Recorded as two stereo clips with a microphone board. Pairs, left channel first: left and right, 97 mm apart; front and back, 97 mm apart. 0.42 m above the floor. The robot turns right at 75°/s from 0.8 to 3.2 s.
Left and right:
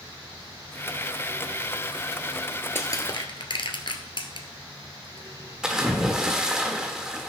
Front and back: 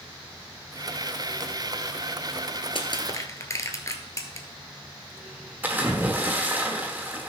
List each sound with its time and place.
2.8 s crushing: 25° left, 1.2 m; by 4.5 s 60° left, 1.2 m
5.6 s a splash: 160° right, 1.2 m